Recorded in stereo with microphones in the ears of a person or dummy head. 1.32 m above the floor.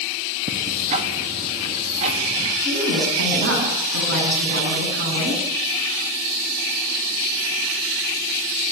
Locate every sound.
0.5 s ticking: 35° right (ahead or behind), 3 m
2.6 s a woman speaking: 55° right (ahead or behind), 10 m